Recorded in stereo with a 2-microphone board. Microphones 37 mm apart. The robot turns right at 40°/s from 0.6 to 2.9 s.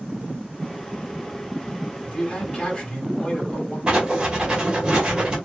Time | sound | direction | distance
2.0 | a man speaking | 95° left | 1.6 m
3.9 | writing | 25° right (ahead or behind) | 1.1 m